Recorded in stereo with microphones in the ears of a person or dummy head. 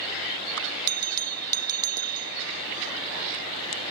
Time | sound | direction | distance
0.9 | a bell | 80° right | ?